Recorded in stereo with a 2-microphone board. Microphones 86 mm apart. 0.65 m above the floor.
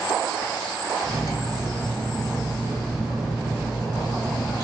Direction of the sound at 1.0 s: 70° left (ahead or behind).